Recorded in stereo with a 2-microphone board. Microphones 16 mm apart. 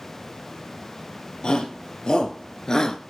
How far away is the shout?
About 3 m.